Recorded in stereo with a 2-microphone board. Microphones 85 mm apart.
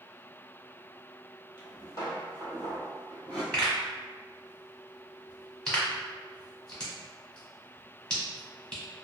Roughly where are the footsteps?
Left.